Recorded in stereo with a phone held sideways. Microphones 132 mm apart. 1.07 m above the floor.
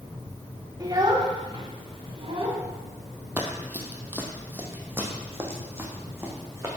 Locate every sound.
0.8 s a child speaking: 30° right (ahead or behind), 1.6 m; by 2.6 s 45° right (ahead or behind), 3 m
3.4 s running footsteps: 10° right (ahead or behind), 1.4 m; by 6.7 s 20° right (ahead or behind), 3 m